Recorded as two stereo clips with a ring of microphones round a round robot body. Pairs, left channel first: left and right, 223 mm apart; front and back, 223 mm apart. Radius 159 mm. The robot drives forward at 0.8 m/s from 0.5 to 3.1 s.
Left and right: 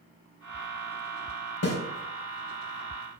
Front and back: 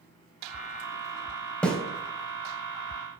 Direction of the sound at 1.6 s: 85° left.